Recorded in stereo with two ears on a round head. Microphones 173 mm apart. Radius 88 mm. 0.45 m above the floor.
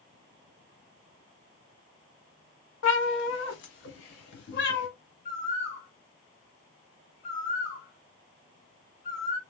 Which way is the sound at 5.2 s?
40° left (ahead or behind).